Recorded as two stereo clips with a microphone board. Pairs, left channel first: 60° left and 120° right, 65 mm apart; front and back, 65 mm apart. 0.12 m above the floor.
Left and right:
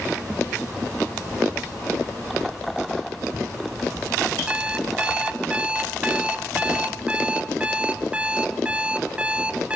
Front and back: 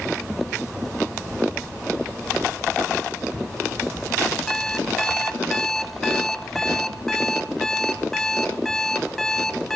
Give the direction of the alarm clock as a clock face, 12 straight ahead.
3 o'clock.